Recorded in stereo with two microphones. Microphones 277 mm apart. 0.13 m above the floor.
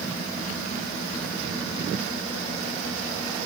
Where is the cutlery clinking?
No cutlery clinking in this recording.